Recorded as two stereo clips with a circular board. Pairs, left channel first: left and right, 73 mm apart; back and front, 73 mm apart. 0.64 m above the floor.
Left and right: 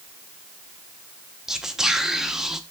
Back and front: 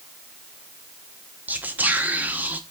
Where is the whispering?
15° right, 0.5 m.